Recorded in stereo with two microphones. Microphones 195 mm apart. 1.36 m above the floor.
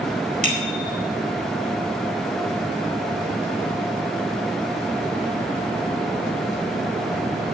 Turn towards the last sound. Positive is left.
turn(degrees=-40)  # may be behind; listen again after turning